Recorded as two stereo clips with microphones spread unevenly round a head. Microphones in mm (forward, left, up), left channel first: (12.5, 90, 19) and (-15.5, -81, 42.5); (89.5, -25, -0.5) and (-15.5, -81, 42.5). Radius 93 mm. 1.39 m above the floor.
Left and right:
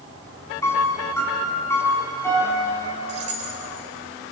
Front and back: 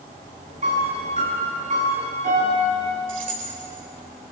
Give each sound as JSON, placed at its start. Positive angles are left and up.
{"t": 0.6, "sound": "a piano", "azimuth_deg": 160, "distance_m": 6.0}
{"t": 3.1, "sound": "keys jangling", "azimuth_deg": -150, "distance_m": 4.5}